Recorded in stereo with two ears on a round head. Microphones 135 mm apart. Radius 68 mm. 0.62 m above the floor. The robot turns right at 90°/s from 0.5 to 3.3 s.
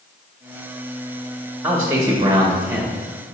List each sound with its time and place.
1.6 s a man speaking: 10° right (ahead or behind), 1.2 m; by 2.9 s 15° right (ahead or behind), 1.2 m